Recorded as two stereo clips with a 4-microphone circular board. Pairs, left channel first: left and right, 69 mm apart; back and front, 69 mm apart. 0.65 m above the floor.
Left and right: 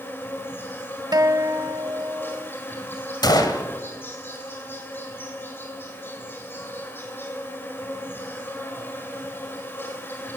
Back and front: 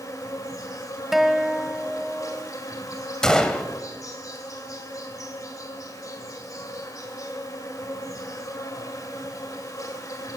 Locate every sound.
0.0 s an insect: 145° left, 2 m
1.1 s a guitar: 85° right, 0.8 m
3.2 s a gunshot: 100° left, 1.2 m